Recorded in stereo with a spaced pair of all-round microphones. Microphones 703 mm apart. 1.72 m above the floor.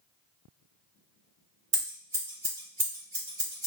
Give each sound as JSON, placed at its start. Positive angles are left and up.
{"t": 1.7, "sound": "scissors", "side_deg": -45, "distance_m": 1.2}